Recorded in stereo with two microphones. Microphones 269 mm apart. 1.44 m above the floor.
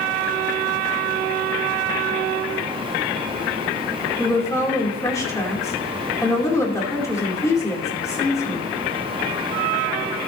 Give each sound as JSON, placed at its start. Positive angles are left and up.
{"t": 4.2, "sound": "a woman speaking", "side_deg": 10, "distance_m": 2.5}